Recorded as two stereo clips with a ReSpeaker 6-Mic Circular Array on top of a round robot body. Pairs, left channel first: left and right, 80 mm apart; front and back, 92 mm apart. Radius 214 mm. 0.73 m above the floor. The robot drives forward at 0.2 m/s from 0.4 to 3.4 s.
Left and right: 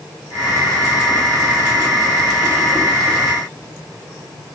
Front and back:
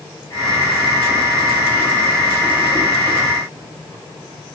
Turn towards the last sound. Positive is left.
No sound to turn to.